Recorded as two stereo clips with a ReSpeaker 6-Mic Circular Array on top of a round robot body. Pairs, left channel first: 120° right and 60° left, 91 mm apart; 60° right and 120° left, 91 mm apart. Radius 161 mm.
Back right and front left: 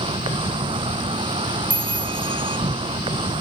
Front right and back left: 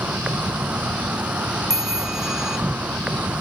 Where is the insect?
45° left.